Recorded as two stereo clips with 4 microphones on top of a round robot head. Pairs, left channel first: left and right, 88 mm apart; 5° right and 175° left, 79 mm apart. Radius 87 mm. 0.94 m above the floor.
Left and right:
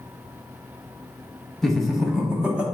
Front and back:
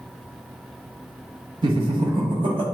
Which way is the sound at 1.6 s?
175° left.